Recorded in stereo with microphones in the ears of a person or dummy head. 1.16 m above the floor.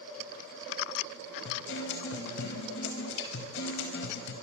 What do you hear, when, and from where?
1.4 s a guitar: 75° left (ahead or behind), 5 m